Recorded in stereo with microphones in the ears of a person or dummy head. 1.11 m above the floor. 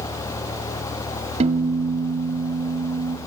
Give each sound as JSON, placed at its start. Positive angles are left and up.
{"t": 1.4, "sound": "a piano", "side_deg": -30, "distance_m": 1.6}